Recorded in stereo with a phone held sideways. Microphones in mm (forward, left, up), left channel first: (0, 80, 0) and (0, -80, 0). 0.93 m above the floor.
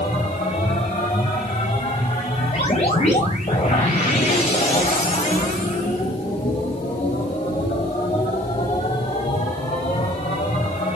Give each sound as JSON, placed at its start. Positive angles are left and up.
{"t": 0.0, "sound": "a machine running", "side_deg": 45, "distance_m": 4.0}